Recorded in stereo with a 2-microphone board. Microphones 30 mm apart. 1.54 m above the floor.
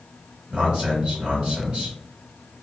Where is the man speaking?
30° right (ahead or behind), 1.6 m.